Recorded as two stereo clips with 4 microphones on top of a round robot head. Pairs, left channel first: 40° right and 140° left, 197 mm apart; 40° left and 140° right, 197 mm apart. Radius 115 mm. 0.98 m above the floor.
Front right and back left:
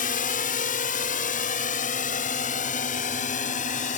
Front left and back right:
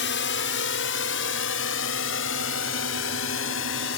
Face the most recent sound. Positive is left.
turn(degrees=15)